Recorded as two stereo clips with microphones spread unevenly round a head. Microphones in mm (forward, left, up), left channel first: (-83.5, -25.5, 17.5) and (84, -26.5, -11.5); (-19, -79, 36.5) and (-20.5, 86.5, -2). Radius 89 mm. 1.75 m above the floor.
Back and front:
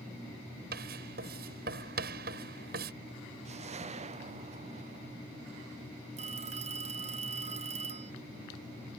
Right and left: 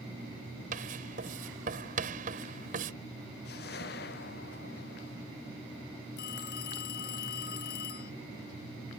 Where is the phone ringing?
55° right.